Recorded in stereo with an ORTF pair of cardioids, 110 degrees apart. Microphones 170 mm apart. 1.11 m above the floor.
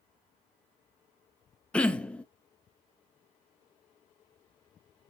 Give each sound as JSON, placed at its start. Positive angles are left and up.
{"t": 1.7, "sound": "throat clearing", "azimuth_deg": 10, "distance_m": 0.7}